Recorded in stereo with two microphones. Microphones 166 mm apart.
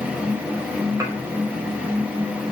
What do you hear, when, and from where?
1.0 s dishes clattering: 20° right (ahead or behind), 5 m